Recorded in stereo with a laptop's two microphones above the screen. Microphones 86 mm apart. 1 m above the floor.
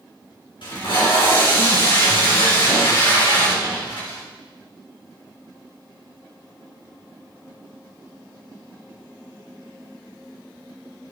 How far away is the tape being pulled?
About 4 m.